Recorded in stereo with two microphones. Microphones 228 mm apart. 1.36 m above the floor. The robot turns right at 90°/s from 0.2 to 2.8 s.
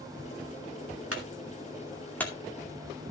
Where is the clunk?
80° right, 2.5 m; by 3.1 s 60° left (ahead or behind), 2.5 m.